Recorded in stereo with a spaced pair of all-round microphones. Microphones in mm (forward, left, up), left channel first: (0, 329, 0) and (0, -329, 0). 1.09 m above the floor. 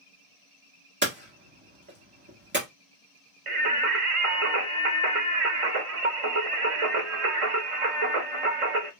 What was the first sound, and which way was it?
Hammering, 15° right (ahead or behind).